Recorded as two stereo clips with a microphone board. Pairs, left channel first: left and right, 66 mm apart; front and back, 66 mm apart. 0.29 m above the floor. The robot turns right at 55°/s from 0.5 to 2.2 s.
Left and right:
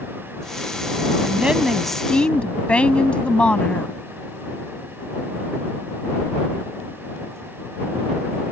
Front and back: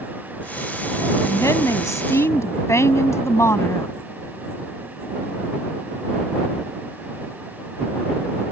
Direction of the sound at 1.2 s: 30° right.